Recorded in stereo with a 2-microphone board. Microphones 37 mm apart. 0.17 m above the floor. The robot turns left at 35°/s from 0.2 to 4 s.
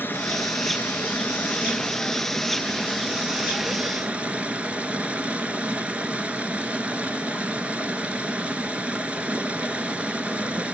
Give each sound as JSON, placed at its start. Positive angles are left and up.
{"t": 0.0, "sound": "running water", "azimuth_deg": 95, "distance_m": 1.3}